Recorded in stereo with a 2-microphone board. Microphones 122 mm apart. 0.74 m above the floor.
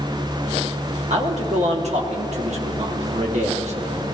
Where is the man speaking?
65° right (ahead or behind), 1.1 m.